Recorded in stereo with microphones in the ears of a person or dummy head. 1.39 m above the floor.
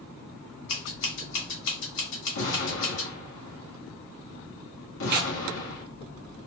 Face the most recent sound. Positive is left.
turn(degrees=-55)  # may be behind; listen again after turning